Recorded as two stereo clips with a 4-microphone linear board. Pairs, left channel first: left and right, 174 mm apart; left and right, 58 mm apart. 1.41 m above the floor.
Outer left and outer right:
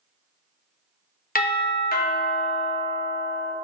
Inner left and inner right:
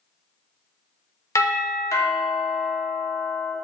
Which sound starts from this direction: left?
A doorbell, at 1.4 s.